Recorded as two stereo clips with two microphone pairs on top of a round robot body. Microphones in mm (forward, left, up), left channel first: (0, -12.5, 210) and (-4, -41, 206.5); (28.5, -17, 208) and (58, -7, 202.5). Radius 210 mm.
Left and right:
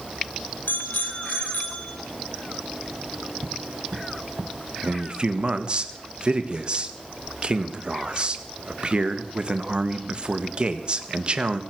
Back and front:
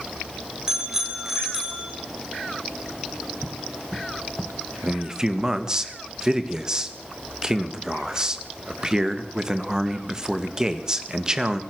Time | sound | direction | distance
0.7 | a bicycle bell | 90° left | 3.5 m
3.4 | footsteps | 85° right | 1.4 m
4.8 | a man speaking | 45° right | 1.9 m